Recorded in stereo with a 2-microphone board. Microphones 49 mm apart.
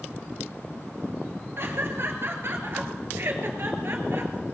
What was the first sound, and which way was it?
Laughter, 55° right (ahead or behind).